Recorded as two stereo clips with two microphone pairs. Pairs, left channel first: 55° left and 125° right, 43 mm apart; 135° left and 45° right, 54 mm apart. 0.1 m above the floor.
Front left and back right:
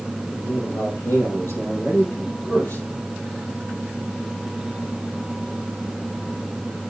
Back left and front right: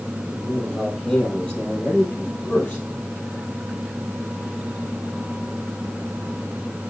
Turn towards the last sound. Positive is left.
turn(degrees=80)